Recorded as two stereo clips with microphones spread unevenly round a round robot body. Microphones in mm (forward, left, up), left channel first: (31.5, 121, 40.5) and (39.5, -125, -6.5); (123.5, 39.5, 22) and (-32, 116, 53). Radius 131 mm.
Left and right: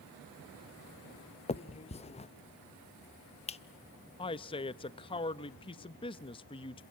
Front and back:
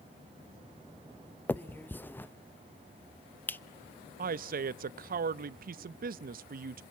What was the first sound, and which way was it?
A finger snap, 30° left.